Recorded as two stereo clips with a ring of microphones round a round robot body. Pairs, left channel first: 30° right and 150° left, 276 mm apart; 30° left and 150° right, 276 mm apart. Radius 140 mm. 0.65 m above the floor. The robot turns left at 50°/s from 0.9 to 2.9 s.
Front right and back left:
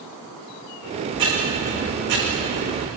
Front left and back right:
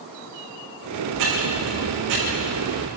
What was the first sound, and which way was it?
Ticking, 135° right.